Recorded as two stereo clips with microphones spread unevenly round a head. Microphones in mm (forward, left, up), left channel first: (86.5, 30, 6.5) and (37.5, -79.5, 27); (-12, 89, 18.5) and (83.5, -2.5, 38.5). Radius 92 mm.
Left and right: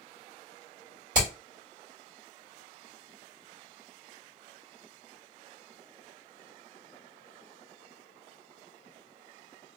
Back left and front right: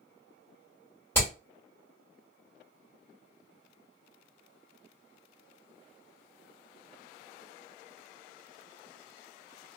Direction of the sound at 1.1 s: 140° right.